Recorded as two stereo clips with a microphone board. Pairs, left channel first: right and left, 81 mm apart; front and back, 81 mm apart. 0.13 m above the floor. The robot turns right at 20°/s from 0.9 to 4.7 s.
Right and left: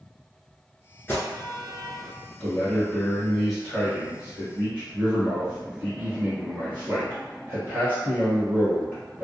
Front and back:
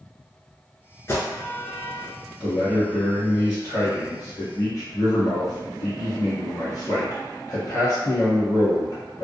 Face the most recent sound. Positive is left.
turn(degrees=25)